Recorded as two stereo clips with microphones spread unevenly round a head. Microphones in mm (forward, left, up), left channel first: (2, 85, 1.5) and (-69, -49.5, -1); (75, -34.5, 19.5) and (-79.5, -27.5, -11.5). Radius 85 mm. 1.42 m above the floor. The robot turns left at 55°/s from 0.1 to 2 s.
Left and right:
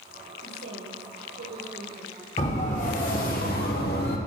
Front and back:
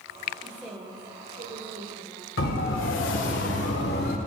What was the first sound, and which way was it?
A woman speaking, 85° right.